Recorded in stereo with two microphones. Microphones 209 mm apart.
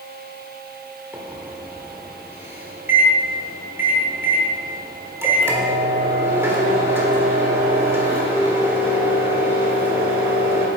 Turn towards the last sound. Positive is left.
turn(degrees=-10)  # may be behind; listen again after turning